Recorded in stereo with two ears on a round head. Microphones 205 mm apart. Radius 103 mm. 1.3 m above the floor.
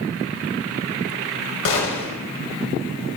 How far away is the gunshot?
About 2 m.